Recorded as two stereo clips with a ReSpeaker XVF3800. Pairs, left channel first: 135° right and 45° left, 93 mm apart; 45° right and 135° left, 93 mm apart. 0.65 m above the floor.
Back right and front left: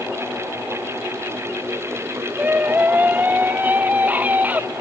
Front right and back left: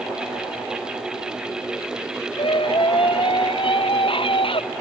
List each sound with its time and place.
2.4 s a scream: 25° right